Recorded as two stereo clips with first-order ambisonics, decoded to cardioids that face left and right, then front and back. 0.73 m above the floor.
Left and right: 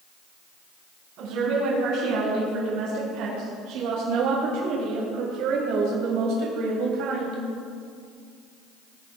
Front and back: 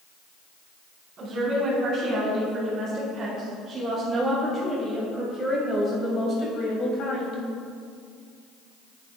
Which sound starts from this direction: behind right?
A woman speaking, at 1.2 s.